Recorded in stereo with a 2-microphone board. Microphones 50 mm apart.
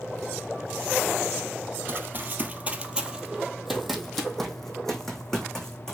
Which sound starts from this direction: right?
Running footsteps, at 1.9 s.